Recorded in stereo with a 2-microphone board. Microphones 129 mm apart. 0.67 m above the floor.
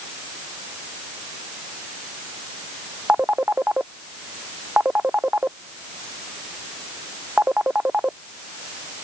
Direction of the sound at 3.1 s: 10° right (ahead or behind).